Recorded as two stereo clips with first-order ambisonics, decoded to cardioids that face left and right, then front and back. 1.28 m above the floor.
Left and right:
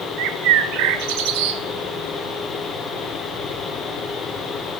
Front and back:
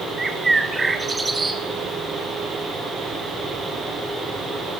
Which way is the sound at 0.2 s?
100° right.